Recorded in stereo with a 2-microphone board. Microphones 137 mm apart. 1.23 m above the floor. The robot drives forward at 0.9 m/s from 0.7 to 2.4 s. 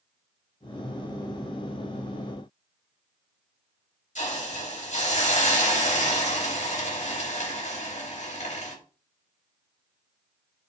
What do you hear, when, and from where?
4.2 s a hiss: 55° left (ahead or behind), 3.5 m